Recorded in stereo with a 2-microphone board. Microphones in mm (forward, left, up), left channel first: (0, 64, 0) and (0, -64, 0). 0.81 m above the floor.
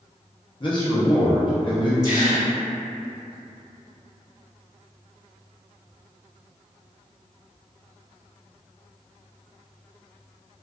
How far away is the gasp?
About 1.1 m.